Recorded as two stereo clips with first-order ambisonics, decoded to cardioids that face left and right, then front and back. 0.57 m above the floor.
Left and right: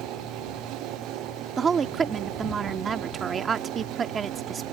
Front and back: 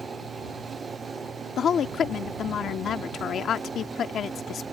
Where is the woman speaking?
40° right.